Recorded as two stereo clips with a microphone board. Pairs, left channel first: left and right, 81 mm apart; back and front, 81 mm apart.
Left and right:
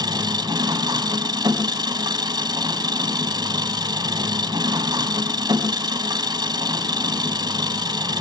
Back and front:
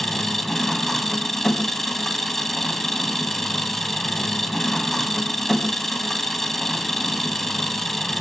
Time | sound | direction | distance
0.0 | an engine running | 95° right | 2.5 m